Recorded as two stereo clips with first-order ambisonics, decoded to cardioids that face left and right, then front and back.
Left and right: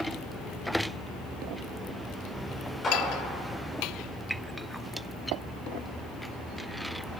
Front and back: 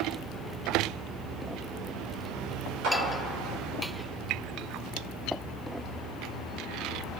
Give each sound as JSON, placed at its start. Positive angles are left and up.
{"t": 2.8, "sound": "a clap", "azimuth_deg": 160, "distance_m": 3.5}